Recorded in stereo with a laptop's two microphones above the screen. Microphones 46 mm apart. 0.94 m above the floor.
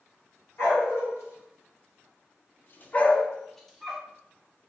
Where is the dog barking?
65° left (ahead or behind), 1.2 m; by 4.0 s 5° right (ahead or behind), 0.9 m.